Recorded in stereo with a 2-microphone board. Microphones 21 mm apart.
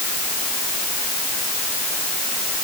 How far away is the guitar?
I don't hear a guitar.